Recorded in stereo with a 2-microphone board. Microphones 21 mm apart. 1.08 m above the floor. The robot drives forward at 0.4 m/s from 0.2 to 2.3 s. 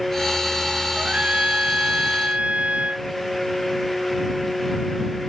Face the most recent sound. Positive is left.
turn(degrees=-70)  # may be behind; listen again after turning